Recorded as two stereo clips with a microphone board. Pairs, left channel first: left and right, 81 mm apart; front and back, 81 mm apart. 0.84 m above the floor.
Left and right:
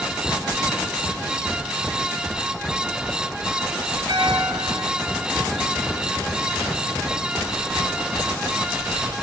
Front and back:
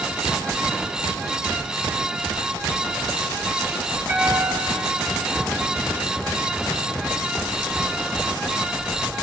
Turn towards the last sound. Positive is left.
turn(degrees=-115)